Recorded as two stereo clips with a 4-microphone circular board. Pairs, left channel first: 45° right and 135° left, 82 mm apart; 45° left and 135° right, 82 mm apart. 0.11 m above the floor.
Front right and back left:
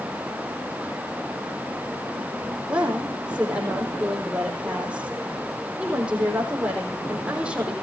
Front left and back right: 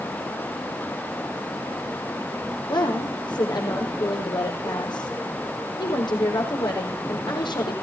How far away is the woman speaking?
About 5 m.